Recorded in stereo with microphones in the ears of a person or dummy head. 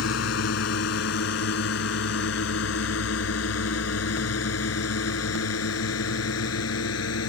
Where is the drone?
70° left (ahead or behind); by 7.3 s 80° left.